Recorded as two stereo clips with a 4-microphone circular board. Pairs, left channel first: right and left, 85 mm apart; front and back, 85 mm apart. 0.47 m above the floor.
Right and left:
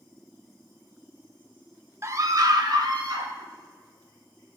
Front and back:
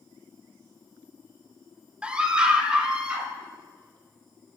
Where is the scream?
110° left, 0.8 m; by 3.3 s 100° left, 2.0 m.